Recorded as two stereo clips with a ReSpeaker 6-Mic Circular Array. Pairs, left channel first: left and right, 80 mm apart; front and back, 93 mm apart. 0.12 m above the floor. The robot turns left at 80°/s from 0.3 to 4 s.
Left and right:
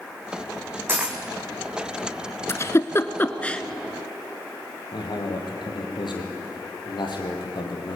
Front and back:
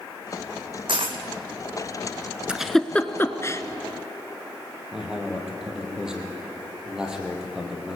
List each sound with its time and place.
0.9 s a dropped coin: 150° right, 1.9 m; by 1.2 s 175° right, 1.9 m
2.5 s a giggle: 105° left, 1.0 m; by 3.6 s 15° left, 1.0 m
4.9 s a man speaking: 100° left, 4.5 m